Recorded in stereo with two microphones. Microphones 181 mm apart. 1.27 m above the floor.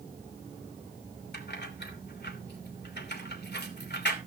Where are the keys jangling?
65° left (ahead or behind), 3 m.